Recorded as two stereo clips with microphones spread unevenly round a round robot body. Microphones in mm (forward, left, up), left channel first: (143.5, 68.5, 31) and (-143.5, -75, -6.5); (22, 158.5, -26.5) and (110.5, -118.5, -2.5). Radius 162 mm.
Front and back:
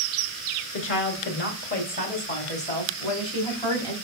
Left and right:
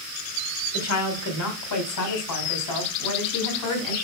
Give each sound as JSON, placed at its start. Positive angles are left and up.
{"t": 0.7, "sound": "a woman speaking", "azimuth_deg": 80, "distance_m": 2.5}